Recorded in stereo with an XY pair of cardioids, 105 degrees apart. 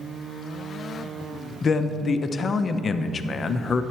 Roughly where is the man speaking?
Ahead left.